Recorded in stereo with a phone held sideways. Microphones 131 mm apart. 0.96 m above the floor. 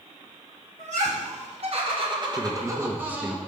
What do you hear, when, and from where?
0.8 s laughter: 65° right (ahead or behind), 2 m; by 3.4 s 10° right (ahead or behind), 1.7 m
2.4 s a man speaking: 15° right (ahead or behind), 0.9 m